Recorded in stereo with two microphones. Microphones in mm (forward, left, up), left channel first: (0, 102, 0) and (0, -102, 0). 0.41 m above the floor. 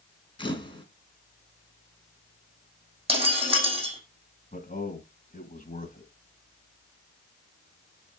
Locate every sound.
0.4 s a camera shutter: 25° left (ahead or behind), 2.5 m
3.1 s breaking glass: 30° right (ahead or behind), 4.5 m
4.5 s a man speaking: 40° left (ahead or behind), 2.5 m